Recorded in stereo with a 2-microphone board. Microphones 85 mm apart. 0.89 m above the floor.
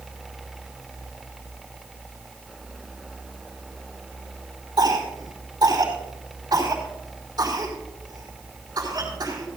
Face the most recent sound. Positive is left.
turn(degrees=-50)  # may be behind; listen again after turning